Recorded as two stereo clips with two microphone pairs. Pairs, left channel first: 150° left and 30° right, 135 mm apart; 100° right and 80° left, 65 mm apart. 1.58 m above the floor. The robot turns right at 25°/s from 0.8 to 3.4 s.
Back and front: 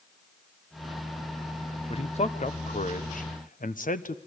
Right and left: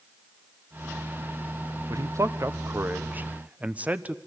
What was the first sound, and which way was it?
A man speaking, 110° left.